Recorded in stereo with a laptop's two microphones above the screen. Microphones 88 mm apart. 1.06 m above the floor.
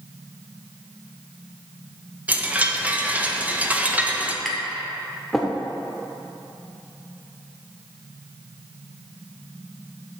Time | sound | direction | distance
2.3 | a chime | 15° right (ahead or behind) | 0.7 m
4.5 | tapping | 5° left (ahead or behind) | 0.9 m